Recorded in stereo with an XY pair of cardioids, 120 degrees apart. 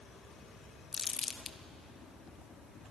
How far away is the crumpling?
About 1.0 m.